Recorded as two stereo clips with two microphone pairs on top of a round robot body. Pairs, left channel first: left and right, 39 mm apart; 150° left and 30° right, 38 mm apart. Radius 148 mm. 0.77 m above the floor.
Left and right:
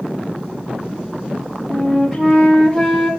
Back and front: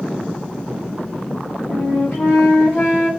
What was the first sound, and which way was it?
A flute, straight behind.